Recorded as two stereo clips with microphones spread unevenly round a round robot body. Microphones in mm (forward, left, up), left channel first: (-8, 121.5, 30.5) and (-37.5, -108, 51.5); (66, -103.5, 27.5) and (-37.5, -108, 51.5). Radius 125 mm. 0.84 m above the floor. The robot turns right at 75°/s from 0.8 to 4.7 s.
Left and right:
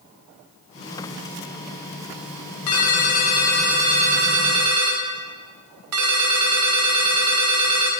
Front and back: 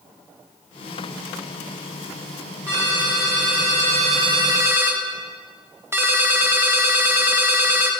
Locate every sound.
2.7 s a ringtone: 100° left, 1.2 m; by 7.9 s 110° right, 1.2 m